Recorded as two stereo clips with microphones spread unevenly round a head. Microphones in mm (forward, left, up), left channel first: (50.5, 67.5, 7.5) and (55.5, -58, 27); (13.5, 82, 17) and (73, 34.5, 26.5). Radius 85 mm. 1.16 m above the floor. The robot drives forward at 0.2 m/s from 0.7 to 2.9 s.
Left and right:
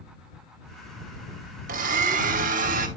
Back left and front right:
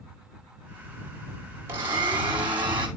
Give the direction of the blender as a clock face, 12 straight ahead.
4 o'clock.